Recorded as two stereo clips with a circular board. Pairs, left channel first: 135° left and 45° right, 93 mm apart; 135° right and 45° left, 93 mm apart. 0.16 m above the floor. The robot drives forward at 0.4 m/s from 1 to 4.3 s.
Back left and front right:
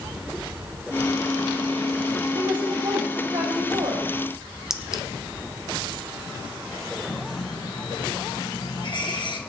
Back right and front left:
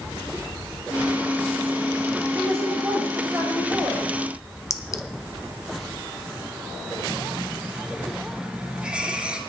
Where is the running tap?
120° left, 1.9 m.